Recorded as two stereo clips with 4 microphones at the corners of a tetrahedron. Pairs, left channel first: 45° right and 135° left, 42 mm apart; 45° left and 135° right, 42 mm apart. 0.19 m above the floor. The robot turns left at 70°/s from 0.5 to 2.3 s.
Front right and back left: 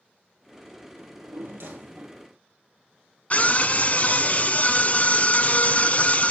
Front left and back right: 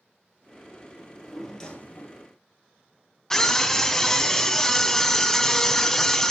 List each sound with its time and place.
1.0 s a drawer: 165° left, 2 m; by 2.3 s 70° left, 2 m
3.3 s a scream: 30° right, 1.3 m